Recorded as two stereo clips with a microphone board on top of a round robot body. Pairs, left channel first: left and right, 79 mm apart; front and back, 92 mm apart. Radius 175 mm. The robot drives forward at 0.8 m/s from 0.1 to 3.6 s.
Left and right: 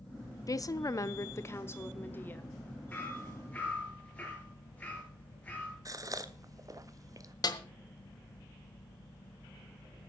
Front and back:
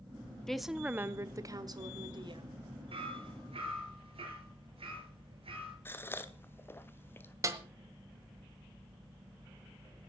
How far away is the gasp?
About 1.3 m.